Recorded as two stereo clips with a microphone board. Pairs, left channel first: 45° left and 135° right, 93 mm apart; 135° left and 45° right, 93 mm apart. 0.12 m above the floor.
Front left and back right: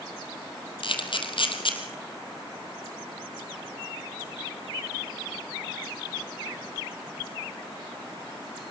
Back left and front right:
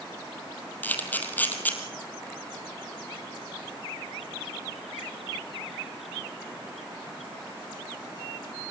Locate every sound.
0.8 s a camera shutter: 65° left, 2.5 m